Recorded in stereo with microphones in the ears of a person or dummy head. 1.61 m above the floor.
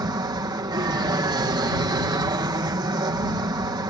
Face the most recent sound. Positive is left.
turn(degrees=-20)  # may be behind; listen again after turning